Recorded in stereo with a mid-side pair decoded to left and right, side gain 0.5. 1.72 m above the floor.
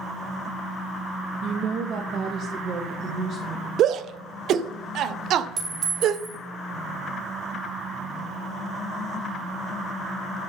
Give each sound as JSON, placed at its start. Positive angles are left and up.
{"t": 1.4, "sound": "a woman speaking", "azimuth_deg": -55, "distance_m": 1.3}
{"t": 3.8, "sound": "a shout", "azimuth_deg": -60, "distance_m": 1.0}
{"t": 5.6, "sound": "a clink", "azimuth_deg": -45, "distance_m": 6.5}